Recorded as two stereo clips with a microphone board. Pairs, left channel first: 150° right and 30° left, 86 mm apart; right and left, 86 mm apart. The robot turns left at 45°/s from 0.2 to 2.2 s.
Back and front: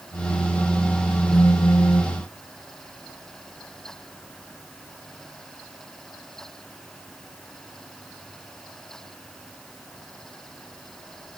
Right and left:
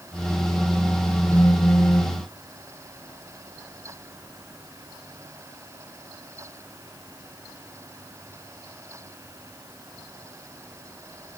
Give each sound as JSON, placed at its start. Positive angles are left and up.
{"t": 1.3, "sound": "a phone buzzing", "azimuth_deg": -130, "distance_m": 1.6}